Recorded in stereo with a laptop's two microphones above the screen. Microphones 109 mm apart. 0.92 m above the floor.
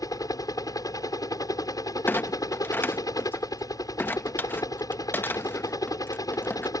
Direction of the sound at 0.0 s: 35° left (ahead or behind).